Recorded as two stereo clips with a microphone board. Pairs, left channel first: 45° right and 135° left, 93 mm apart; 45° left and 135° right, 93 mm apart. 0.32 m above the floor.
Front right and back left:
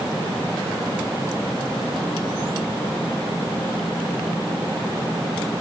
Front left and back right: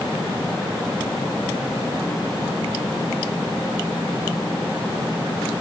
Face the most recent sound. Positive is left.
No sound to turn to.